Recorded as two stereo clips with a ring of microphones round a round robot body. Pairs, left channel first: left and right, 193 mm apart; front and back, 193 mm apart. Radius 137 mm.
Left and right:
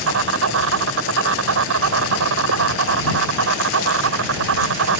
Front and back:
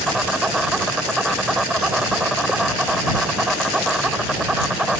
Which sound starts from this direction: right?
An insect, at 0.0 s.